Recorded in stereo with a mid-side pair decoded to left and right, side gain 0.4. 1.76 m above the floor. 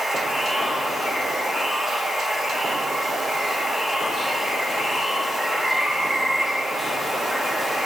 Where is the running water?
Straight ahead, 3 m.